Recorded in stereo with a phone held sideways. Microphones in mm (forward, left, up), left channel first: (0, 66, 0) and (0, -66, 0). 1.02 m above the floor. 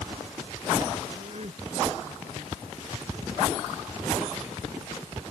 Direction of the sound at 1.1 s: 55° right (ahead or behind).